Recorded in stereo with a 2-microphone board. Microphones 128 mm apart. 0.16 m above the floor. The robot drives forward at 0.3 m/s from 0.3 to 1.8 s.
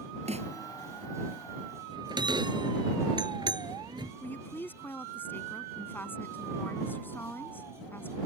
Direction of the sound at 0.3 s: 60° right (ahead or behind).